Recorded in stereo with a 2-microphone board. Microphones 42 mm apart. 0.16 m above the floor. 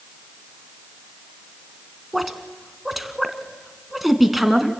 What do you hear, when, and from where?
2.1 s a woman speaking: 5° right (ahead or behind), 1.5 m